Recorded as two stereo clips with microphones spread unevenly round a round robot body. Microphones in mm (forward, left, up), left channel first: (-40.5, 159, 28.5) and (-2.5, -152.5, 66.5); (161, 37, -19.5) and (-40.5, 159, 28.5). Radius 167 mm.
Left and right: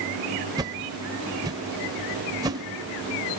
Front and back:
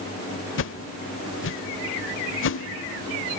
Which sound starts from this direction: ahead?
A whoosh, at 0.6 s.